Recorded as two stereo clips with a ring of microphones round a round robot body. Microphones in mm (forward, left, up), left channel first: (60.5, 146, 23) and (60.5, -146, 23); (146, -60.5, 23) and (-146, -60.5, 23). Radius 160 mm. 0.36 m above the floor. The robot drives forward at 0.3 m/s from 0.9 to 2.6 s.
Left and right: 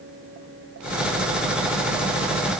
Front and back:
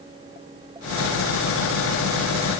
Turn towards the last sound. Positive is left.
No sound to turn to.